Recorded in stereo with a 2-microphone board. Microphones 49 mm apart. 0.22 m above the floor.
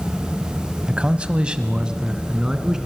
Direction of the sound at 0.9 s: 25° right (ahead or behind).